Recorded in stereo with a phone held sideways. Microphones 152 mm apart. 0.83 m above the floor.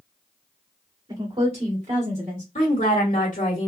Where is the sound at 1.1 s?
30° right (ahead or behind), 2 m; by 2.5 s 60° right (ahead or behind), 2 m.